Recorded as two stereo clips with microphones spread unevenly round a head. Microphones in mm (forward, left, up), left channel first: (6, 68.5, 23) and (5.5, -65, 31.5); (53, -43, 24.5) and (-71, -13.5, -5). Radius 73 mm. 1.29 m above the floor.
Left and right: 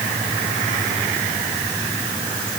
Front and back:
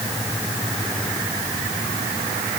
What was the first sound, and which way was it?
Only background noise.